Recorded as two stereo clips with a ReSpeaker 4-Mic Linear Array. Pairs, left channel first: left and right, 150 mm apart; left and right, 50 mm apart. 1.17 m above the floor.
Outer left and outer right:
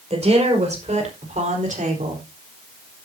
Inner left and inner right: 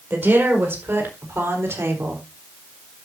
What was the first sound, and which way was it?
A woman speaking, 45° right (ahead or behind).